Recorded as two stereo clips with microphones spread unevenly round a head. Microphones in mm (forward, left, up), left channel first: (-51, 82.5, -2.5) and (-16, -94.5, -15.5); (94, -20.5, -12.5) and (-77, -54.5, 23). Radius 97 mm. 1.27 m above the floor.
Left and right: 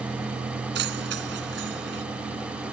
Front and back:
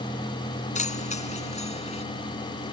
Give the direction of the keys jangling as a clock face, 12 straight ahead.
1 o'clock.